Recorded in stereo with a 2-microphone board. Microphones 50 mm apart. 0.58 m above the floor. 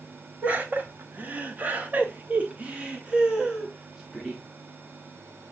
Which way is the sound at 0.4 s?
30° right (ahead or behind).